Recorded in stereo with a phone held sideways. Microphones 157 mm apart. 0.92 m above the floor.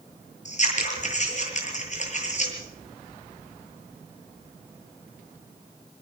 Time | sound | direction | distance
0.5 | scissors | 50° left (ahead or behind) | 7 m